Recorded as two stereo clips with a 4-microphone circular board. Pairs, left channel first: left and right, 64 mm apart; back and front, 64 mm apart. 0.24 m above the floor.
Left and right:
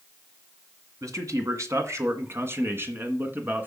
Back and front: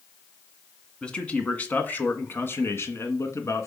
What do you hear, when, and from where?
1.0 s a man speaking: 105° right, 2.0 m; by 3.7 s 150° right, 2.5 m